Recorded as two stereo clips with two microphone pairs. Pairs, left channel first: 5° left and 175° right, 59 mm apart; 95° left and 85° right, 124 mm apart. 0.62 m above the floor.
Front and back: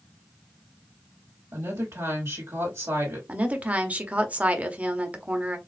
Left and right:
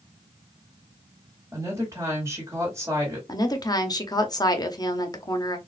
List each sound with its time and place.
1.5 s a woman speaking: 145° right, 1.8 m
3.3 s a woman speaking: 130° left, 0.7 m